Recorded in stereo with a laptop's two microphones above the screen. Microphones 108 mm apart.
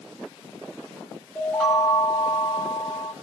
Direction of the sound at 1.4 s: 15° left (ahead or behind).